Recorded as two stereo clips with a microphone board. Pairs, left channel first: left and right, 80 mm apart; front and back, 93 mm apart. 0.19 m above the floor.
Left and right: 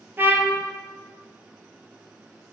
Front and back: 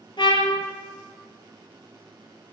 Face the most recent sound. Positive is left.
turn(degrees=-30)